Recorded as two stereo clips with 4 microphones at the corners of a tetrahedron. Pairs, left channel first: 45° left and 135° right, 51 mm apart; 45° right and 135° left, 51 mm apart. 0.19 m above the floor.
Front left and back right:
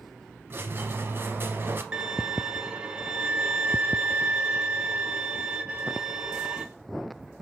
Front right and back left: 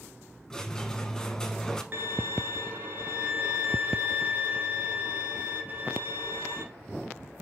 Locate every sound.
0.5 s a squeak: 120° right, 0.6 m
1.9 s a violin: 160° left, 0.7 m